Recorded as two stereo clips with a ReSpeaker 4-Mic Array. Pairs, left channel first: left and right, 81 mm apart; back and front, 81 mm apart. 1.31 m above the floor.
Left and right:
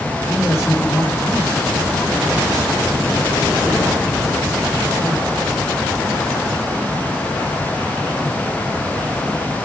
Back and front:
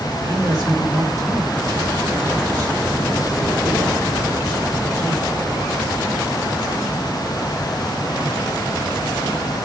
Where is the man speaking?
35° left, 4 m.